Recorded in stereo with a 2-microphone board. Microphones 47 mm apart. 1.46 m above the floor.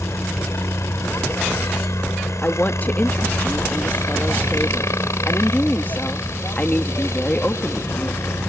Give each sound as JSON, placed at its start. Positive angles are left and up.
{"t": 0.0, "sound": "a helicopter", "side_deg": 70}
{"t": 2.4, "sound": "a woman speaking", "side_deg": 35}